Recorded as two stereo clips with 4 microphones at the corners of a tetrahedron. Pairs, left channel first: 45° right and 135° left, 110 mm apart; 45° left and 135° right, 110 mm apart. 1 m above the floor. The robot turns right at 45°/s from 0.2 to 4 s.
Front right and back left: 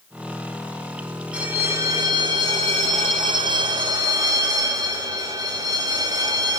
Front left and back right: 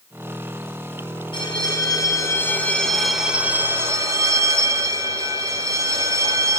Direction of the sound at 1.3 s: 55° left.